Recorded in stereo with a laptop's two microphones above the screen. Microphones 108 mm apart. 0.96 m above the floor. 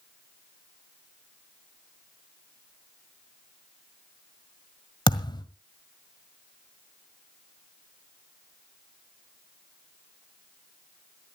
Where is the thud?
45° left (ahead or behind), 1.6 m.